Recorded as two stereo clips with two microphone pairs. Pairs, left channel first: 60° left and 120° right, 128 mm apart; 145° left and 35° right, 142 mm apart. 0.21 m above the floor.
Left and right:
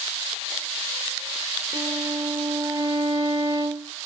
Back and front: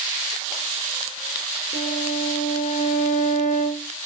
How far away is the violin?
About 5 m.